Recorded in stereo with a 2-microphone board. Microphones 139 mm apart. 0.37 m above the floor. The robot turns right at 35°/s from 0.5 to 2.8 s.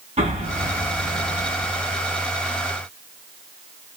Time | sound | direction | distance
0.2 | an explosion | 55° right | 2.5 m